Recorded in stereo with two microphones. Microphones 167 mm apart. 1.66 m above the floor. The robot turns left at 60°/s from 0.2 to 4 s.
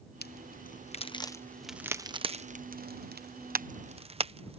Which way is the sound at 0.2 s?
70° left (ahead or behind).